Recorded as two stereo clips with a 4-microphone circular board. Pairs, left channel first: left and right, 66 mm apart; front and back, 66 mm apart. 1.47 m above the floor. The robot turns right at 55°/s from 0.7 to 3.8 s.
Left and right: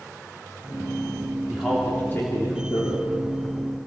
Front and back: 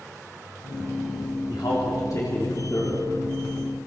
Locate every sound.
1.5 s a man speaking: 5° right, 3.5 m; by 3.0 s 75° left, 3.5 m